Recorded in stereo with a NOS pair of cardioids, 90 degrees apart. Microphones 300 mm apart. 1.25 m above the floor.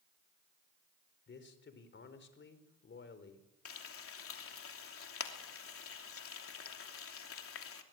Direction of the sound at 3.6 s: 50° left.